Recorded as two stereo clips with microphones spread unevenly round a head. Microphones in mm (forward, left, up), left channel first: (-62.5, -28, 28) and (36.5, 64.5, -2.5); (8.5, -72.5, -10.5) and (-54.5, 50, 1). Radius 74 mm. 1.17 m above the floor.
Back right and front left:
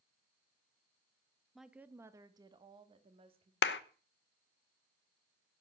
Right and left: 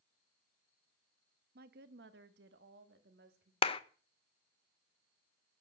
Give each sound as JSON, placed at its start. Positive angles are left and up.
{"t": 1.6, "sound": "a woman speaking", "azimuth_deg": 135, "distance_m": 1.1}
{"t": 3.6, "sound": "a clap", "azimuth_deg": -115, "distance_m": 0.8}